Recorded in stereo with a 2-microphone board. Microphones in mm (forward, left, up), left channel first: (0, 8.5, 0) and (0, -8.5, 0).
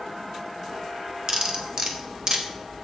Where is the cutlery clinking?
40° right (ahead or behind), 1.1 m.